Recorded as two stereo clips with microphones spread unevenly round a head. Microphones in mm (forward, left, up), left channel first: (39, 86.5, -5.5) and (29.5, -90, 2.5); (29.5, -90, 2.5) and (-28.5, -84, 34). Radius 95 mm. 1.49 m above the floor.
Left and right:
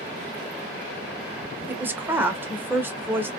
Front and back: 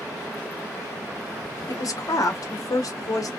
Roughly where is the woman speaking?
Ahead.